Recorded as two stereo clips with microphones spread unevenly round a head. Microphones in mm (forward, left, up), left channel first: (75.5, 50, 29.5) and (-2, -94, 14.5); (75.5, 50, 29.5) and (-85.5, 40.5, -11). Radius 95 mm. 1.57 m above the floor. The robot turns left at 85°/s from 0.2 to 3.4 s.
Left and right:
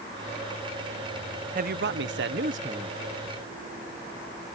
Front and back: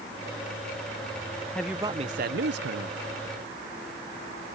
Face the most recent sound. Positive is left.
turn(degrees=120)